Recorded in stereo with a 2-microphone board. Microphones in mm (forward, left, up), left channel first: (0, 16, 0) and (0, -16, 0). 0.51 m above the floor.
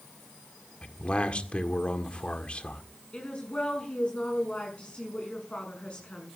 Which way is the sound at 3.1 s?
35° left (ahead or behind).